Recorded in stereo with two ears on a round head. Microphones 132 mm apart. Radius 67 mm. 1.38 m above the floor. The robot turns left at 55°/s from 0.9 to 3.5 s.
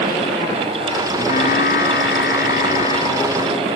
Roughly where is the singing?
Behind left.